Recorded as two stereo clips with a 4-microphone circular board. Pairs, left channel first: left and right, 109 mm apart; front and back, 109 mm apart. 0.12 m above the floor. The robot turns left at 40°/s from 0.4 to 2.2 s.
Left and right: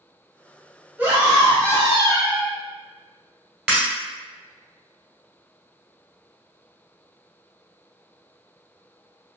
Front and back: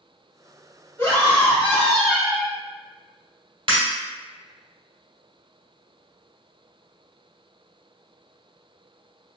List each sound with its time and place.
1.0 s a scream: 35° right, 1.5 m; by 2.5 s 85° right, 1.5 m
3.7 s breaking glass: 165° right, 1.5 m